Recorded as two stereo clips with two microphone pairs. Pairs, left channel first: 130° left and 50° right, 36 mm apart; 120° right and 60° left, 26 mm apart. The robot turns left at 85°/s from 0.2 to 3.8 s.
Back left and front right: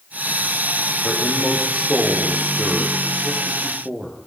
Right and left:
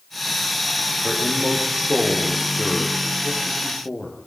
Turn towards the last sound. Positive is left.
turn(degrees=-125)